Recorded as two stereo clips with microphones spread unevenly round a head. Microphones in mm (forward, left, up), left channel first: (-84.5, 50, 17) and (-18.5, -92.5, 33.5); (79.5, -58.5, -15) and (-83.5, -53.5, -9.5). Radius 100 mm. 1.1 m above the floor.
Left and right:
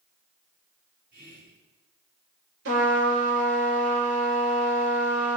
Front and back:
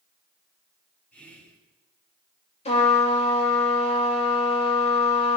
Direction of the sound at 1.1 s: 80° right.